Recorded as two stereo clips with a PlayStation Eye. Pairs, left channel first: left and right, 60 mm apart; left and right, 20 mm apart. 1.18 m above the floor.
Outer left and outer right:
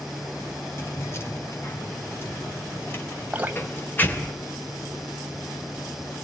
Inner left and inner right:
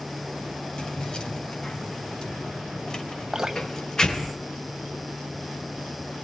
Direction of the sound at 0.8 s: 45° left (ahead or behind).